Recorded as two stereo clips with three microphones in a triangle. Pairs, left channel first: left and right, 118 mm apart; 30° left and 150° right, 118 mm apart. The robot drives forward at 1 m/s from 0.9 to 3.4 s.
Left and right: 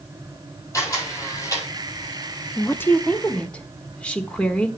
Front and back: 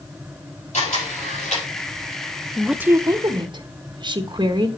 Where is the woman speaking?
95° left, 0.5 m; by 4.7 s 170° left, 1.0 m.